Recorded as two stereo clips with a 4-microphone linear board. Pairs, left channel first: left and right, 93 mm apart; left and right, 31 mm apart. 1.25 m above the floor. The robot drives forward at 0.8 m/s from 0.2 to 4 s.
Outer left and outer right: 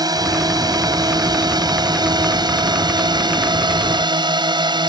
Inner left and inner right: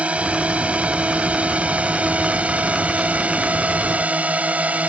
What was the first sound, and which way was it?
A drone, 45° right (ahead or behind).